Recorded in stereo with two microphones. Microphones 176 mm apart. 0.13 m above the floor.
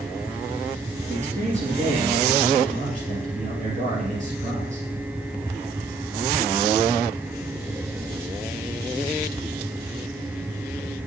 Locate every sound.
1.1 s a man speaking: 45° right (ahead or behind), 2 m